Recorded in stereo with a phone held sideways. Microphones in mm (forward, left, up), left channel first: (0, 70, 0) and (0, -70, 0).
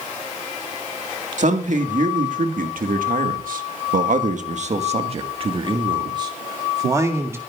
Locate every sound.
1.4 s a man speaking: 60° right (ahead or behind), 2 m; by 7.4 s 20° right (ahead or behind), 2.5 m